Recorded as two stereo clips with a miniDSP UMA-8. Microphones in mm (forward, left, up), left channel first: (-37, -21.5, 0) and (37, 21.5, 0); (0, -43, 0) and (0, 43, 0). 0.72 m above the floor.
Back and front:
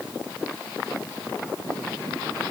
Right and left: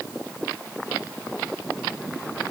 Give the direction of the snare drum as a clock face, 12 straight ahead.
I don't hear a snare drum.